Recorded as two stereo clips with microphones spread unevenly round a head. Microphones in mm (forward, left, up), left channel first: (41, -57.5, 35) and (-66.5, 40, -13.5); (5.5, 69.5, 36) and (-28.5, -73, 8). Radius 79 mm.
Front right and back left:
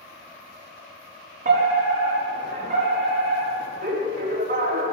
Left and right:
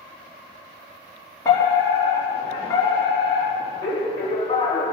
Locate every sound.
1.4 s a fire alarm: 145° left, 4.5 m